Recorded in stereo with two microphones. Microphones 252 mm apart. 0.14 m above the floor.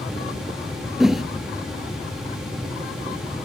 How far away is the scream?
I don't hear a scream.